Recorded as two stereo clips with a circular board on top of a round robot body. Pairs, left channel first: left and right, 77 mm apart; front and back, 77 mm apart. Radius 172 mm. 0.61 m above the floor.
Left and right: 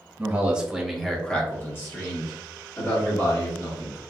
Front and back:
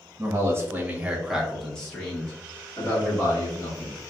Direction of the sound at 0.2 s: 150° right.